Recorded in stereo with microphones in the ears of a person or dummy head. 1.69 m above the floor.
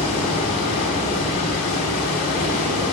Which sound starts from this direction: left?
Running water, at 0.0 s.